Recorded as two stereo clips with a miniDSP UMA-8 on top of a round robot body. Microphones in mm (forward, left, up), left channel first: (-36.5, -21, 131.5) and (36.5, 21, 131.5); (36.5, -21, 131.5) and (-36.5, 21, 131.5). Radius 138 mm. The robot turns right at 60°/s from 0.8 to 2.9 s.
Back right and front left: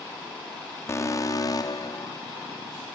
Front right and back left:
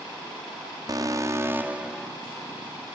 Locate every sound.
0.9 s an alarm: 165° left, 1.7 m; by 2.1 s 120° right, 1.7 m